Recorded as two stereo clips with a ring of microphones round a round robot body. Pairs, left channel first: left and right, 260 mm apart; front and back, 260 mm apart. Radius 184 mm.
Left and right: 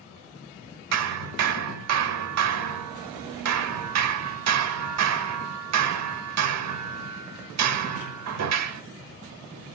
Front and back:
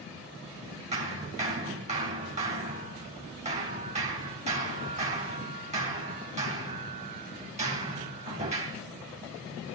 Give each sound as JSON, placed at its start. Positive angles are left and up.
{"t": 0.9, "sound": "hammering", "azimuth_deg": -110, "distance_m": 0.9}